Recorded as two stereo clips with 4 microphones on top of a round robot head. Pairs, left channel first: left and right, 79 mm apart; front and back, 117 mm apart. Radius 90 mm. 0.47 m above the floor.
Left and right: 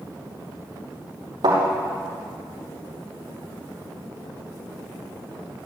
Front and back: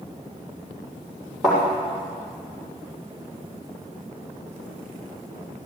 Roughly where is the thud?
Right.